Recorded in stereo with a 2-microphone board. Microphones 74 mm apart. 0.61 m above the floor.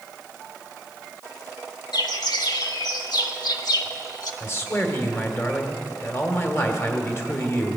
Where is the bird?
65° left (ahead or behind), 1.1 m.